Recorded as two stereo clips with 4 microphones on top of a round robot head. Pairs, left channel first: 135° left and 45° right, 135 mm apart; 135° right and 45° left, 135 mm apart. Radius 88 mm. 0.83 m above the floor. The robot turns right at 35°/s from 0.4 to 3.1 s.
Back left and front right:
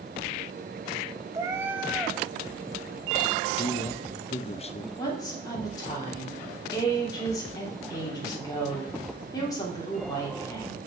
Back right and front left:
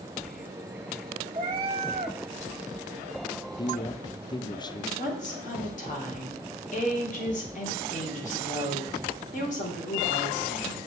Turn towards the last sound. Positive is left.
turn(degrees=-160)